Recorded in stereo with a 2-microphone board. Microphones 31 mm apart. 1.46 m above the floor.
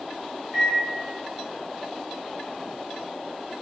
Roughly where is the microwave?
Centre.